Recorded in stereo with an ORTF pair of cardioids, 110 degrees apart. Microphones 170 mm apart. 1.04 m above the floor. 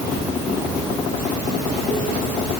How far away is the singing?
No singing in this recording.